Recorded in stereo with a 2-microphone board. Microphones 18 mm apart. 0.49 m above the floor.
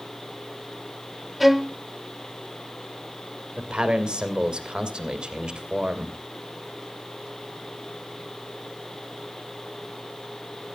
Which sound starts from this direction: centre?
A violin, at 1.4 s.